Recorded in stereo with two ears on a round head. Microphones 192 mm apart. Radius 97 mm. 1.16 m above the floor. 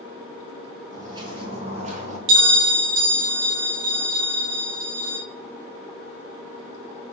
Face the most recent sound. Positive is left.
turn(degrees=-55)  # may be behind; listen again after turning